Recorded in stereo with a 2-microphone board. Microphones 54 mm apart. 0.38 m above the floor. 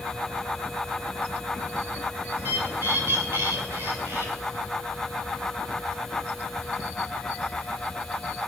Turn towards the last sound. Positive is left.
turn(degrees=-45)  # may be behind; listen again after turning